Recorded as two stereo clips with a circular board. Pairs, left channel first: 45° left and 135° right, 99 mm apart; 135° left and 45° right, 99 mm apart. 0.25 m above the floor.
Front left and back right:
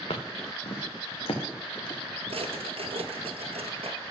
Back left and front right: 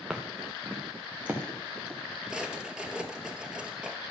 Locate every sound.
0.1 s footsteps: 40° left, 1.7 m; by 2.0 s 25° left, 3.5 m
2.3 s a drawer: 130° right, 1.3 m